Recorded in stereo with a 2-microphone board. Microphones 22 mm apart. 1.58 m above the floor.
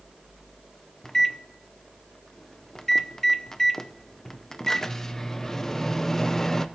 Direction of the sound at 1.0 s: 25° left (ahead or behind).